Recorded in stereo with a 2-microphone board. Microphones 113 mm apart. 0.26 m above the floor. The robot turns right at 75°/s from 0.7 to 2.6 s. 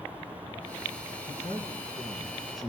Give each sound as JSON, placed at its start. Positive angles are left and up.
{"t": 1.3, "sound": "a man speaking", "azimuth_deg": 80, "distance_m": 2.5}